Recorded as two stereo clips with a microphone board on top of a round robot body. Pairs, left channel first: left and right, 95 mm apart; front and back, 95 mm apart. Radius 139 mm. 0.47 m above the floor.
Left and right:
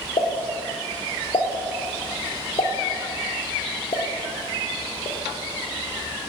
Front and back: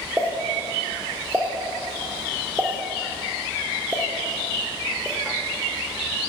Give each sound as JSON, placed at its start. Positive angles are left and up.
{"t": 0.2, "sound": "a pop", "azimuth_deg": 110, "distance_m": 1.1}